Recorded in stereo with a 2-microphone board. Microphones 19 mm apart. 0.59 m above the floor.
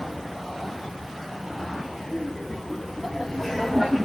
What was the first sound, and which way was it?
Laughter, 15° left (ahead or behind).